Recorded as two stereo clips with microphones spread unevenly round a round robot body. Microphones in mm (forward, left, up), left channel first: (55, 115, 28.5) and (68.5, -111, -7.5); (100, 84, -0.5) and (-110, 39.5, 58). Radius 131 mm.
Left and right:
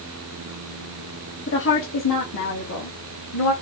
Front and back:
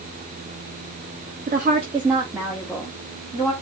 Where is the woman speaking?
140° left, 1.2 m; by 3.5 s 80° left, 2 m.